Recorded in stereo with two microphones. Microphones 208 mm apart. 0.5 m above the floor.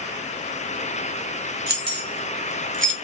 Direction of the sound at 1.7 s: 50° right (ahead or behind).